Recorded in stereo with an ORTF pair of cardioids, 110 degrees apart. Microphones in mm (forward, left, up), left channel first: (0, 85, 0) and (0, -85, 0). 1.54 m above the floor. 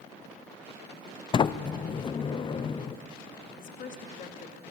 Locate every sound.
1.3 s a sliding door: 30° left, 0.7 m
3.5 s a woman speaking: 50° left, 2.5 m